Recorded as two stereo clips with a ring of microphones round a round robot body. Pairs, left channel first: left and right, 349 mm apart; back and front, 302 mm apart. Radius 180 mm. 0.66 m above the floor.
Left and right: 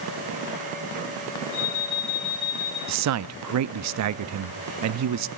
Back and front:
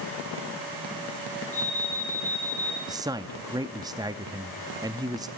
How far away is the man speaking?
About 0.6 m.